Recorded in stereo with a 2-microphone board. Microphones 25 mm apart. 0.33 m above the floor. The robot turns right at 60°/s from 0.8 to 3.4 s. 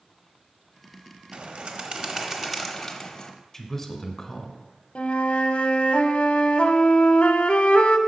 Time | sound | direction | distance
1.3 | a bird | 80° right | 0.9 m
3.5 | a man speaking | 15° left (ahead or behind) | 1.1 m
5.0 | a flute | 55° left (ahead or behind) | 0.8 m